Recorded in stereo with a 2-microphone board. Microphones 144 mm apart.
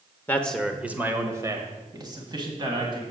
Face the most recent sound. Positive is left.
turn(degrees=-35)  # may be behind; listen again after turning